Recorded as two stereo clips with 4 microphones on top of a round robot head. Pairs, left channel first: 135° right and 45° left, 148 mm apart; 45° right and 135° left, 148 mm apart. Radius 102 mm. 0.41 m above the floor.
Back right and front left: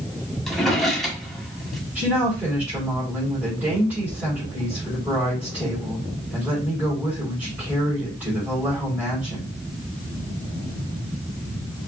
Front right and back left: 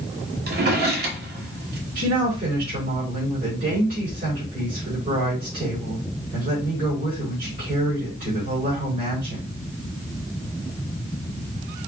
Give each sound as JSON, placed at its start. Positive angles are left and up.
{"t": 0.5, "sound": "a drawer", "azimuth_deg": 135, "distance_m": 1.4}
{"t": 1.9, "sound": "a woman speaking", "azimuth_deg": 125, "distance_m": 3.5}